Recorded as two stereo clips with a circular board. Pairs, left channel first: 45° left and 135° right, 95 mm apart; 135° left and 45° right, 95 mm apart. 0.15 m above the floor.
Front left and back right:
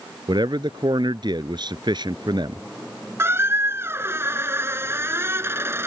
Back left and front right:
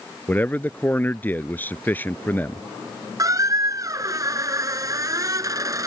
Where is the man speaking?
160° right.